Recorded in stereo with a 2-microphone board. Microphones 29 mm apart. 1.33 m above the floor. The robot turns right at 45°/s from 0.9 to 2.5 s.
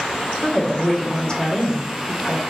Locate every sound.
0.4 s a woman speaking: 15° left, 1.1 m; by 2.4 s 80° left, 1.1 m